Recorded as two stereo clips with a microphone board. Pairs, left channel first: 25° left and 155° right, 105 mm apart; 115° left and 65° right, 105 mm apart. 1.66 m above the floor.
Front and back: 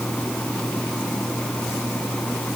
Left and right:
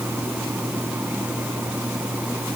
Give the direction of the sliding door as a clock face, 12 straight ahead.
No sliding door in this recording.